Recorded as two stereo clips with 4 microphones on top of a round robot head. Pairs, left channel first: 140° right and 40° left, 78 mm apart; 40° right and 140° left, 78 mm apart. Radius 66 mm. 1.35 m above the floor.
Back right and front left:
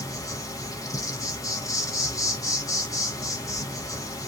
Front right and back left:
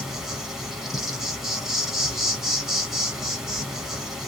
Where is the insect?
140° right, 1.4 m.